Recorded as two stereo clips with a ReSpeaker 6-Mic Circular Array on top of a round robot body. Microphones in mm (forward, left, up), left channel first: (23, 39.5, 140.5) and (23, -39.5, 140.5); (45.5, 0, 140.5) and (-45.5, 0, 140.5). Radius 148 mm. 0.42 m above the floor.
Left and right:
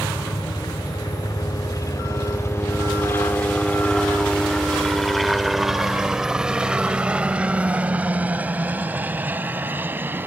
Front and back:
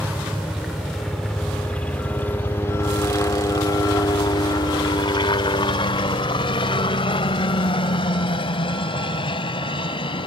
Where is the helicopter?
100° left; by 10.3 s 25° right.